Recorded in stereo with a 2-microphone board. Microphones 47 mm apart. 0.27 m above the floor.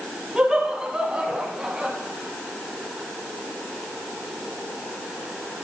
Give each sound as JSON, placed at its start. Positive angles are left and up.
{"t": 0.3, "sound": "laughter", "side_deg": -10, "distance_m": 2.0}